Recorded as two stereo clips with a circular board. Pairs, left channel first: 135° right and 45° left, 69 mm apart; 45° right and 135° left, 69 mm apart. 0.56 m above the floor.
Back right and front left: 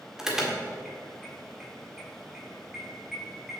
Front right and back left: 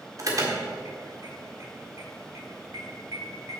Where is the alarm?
125° left, 1.6 m.